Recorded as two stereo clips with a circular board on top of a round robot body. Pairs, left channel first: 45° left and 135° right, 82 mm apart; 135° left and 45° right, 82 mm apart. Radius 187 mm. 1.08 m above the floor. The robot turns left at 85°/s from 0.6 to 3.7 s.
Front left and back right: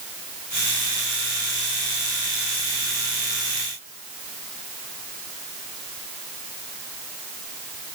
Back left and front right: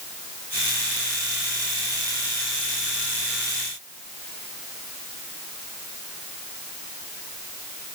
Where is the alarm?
No alarm in this recording.